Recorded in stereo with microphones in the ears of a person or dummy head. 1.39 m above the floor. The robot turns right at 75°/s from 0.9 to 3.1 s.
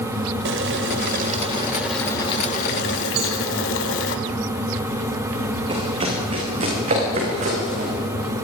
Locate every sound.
0.5 s boiling: 75° right, 2.5 m; by 4.2 s 90° left, 2.5 m
3.2 s a cowbell: 55° right (ahead or behind), 7.5 m
5.7 s running footsteps: 35° right (ahead or behind), 8 m; by 7.9 s 50° right (ahead or behind), 10 m